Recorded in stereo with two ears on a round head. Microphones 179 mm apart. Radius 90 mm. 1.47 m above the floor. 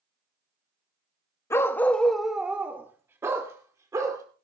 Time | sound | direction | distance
1.5 | a dog barking | 15° left (ahead or behind) | 0.9 m